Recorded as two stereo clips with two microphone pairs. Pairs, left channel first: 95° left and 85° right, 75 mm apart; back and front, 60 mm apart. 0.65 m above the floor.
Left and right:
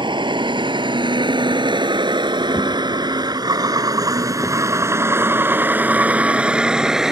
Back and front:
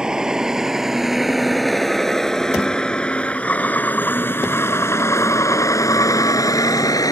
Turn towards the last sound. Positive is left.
turn(degrees=-170)